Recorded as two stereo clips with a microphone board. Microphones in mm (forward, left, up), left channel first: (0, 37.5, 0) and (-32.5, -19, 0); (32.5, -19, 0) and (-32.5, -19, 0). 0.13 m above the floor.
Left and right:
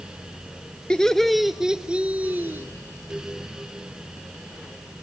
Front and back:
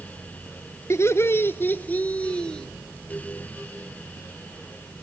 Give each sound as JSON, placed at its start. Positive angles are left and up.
{"t": 0.9, "sound": "laughter", "azimuth_deg": -15, "distance_m": 1.5}